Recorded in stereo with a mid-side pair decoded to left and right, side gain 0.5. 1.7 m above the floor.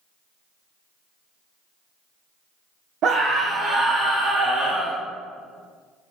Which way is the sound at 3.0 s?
60° right.